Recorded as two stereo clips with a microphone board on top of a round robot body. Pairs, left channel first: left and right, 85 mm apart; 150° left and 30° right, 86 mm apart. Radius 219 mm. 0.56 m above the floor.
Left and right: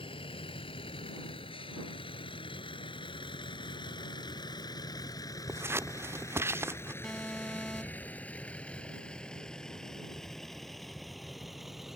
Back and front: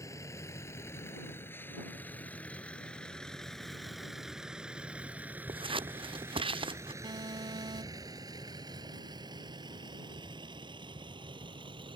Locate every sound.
0.0 s a vehicle: 95° left; by 12.0 s 5° right
5.5 s scissors: 30° right
7.0 s an alarm: 5° left